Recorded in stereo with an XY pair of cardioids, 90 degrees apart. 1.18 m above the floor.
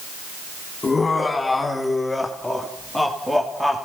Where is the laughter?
25° left, 3.5 m; by 3.9 s 10° right, 3 m.